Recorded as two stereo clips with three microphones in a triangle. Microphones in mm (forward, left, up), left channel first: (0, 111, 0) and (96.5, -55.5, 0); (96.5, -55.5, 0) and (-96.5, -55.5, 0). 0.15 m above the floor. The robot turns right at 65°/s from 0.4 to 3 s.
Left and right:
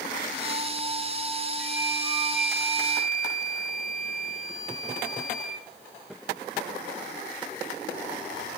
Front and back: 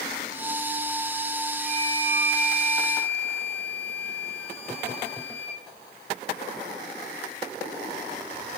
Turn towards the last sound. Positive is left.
turn(degrees=175)